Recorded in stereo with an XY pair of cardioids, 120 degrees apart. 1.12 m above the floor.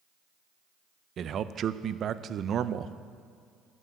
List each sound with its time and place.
1.2 s a man speaking: 50° right, 0.5 m